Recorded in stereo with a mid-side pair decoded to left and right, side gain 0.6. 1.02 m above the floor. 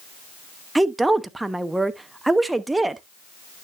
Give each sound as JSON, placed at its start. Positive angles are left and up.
{"t": 0.8, "sound": "a woman speaking", "azimuth_deg": -10, "distance_m": 0.9}